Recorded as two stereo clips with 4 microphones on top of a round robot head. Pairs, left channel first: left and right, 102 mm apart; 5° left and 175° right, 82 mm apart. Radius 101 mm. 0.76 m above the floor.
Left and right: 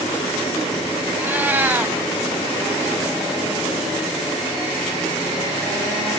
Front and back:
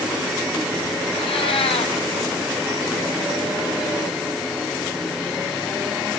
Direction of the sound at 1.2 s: 15° right.